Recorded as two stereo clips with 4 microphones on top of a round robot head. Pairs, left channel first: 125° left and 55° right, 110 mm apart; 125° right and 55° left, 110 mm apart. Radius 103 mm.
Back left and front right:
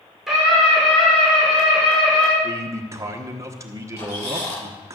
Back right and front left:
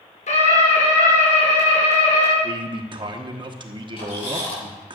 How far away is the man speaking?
About 1.1 m.